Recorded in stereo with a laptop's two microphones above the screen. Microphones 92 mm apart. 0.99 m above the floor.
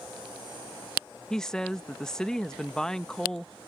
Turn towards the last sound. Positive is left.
turn(degrees=5)  # may be behind; listen again after turning